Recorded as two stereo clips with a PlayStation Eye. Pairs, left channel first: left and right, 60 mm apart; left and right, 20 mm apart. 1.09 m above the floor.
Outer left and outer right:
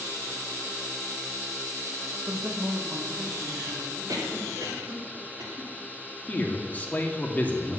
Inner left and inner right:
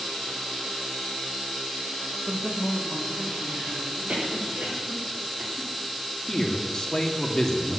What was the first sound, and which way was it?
A man speaking, 55° right (ahead or behind).